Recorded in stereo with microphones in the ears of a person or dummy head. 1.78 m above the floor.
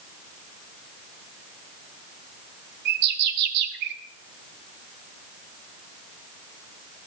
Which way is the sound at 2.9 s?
65° right (ahead or behind).